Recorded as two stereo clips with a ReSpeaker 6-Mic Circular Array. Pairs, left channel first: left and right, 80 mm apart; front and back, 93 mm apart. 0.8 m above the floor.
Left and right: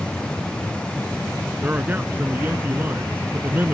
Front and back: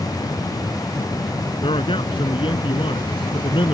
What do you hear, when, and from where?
1.6 s a man speaking: 25° right